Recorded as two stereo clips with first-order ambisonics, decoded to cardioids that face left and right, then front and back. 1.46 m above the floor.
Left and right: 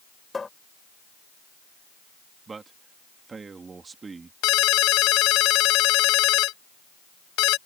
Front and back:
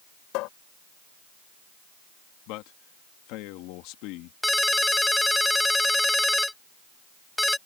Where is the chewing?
No chewing in this recording.